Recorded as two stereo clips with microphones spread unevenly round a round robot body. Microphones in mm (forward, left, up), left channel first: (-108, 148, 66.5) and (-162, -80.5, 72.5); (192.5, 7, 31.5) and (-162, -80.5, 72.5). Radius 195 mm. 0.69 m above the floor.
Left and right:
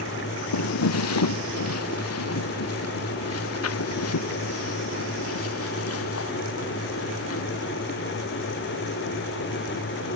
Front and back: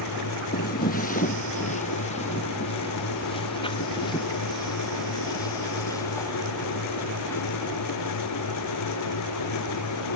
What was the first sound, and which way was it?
Footsteps, 85° left.